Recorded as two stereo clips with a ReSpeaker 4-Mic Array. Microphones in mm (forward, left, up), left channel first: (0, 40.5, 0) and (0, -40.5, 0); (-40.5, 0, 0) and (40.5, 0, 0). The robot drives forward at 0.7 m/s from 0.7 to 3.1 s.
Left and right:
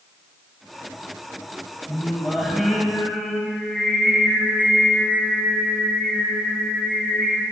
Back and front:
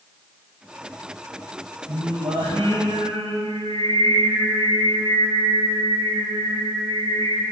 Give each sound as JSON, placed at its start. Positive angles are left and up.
{"t": 1.9, "sound": "singing", "azimuth_deg": 0, "distance_m": 5.0}